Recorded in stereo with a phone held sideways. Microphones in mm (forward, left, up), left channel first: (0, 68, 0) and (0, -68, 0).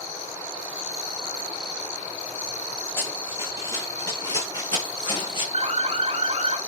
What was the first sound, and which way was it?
Running footsteps, 20° left (ahead or behind).